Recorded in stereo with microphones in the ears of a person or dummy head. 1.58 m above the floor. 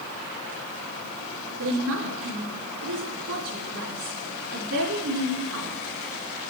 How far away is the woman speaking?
About 3.5 m.